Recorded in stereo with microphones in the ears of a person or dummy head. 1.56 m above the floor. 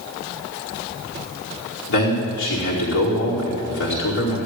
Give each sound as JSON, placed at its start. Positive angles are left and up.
{"t": 1.9, "sound": "a man speaking", "side_deg": 70, "distance_m": 4.5}